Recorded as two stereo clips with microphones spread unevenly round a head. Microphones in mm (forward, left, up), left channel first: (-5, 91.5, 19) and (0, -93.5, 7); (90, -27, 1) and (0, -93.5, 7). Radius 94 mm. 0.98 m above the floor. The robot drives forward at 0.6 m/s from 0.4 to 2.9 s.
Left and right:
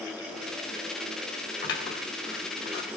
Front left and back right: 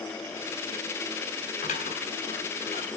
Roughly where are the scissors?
Ahead left.